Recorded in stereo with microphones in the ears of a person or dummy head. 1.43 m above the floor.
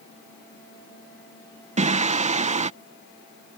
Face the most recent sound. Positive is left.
turn(degrees=-35)  # may be behind; listen again after turning